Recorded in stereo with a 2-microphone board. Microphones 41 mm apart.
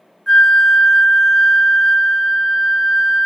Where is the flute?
10° left (ahead or behind), 0.5 m.